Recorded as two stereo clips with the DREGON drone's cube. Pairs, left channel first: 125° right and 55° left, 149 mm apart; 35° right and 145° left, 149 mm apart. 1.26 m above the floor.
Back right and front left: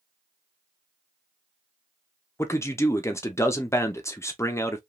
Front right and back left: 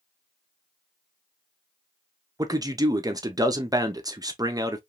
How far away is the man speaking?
About 0.5 m.